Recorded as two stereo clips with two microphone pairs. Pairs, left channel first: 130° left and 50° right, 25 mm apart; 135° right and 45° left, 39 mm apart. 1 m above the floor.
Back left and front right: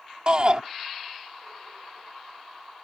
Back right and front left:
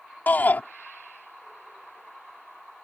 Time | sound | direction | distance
0.3 | a shout | 100° right | ?